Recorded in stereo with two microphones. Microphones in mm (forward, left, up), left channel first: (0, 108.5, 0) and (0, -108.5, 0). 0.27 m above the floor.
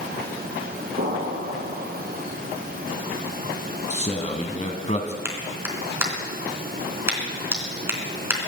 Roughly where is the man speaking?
Left.